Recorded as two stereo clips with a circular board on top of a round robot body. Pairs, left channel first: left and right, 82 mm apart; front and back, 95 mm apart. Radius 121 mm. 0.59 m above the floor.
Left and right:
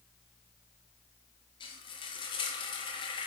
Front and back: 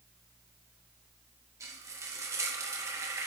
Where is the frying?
120° left, 0.7 m.